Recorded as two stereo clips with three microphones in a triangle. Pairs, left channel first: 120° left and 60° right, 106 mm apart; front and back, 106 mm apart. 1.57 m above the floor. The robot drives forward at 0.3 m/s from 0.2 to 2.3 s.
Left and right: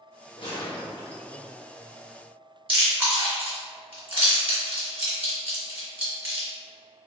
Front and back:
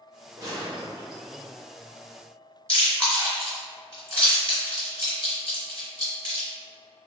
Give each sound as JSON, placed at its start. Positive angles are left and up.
{"t": 0.4, "sound": "a gunshot", "azimuth_deg": 135, "distance_m": 1.0}
{"t": 2.7, "sound": "chewing", "azimuth_deg": -130, "distance_m": 1.8}